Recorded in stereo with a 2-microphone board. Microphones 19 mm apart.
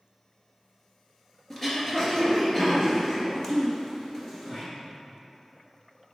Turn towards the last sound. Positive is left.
turn(degrees=20)  # may be behind; listen again after turning